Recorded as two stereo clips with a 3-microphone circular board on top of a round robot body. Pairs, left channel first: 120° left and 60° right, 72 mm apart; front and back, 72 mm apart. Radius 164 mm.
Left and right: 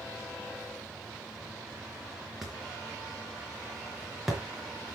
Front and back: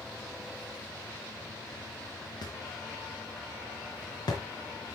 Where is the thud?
30° left, 4 m.